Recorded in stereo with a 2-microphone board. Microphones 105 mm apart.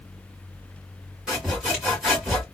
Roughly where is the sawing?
Centre.